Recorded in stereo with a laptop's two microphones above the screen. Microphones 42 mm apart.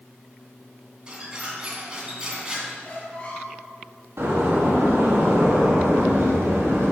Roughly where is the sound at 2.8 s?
Left.